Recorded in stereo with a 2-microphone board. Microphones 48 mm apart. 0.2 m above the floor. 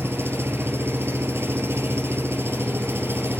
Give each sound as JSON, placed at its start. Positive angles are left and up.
{"t": 0.0, "sound": "an engine running", "side_deg": -60, "distance_m": 2.0}